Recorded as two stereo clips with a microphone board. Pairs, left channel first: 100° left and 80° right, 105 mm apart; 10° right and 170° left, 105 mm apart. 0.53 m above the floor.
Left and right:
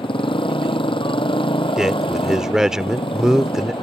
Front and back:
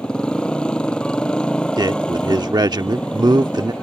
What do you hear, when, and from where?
0.0 s a motorcycle: 70° left
1.8 s a man speaking: 160° right